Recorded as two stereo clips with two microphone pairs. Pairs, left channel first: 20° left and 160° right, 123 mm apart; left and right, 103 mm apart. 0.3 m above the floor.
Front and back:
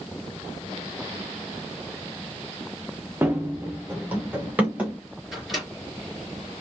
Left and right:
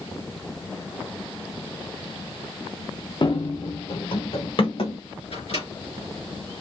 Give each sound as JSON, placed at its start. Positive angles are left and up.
{"t": 3.2, "sound": "running footsteps", "azimuth_deg": 125, "distance_m": 1.2}
{"t": 5.3, "sound": "a microwave", "azimuth_deg": 110, "distance_m": 3.0}